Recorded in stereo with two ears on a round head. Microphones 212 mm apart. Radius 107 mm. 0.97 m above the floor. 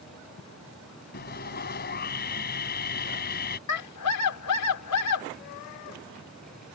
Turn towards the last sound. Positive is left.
turn(degrees=85)